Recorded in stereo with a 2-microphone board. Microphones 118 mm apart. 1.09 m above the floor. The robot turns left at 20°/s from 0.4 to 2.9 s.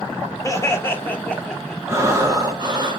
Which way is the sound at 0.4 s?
25° left (ahead or behind).